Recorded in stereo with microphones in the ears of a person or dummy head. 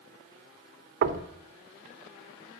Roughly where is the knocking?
Right.